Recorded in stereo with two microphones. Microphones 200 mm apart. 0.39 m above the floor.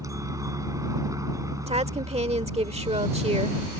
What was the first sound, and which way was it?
A helicopter, 15° right (ahead or behind).